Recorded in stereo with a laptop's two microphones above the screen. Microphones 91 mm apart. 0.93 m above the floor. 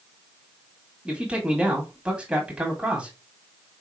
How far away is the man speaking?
About 1.9 m.